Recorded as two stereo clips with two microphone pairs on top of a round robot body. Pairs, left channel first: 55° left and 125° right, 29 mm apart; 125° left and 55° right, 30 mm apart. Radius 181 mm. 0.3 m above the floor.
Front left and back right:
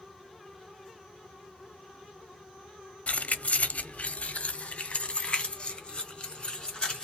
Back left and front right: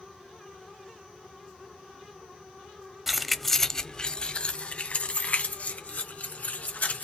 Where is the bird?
I don't hear a bird.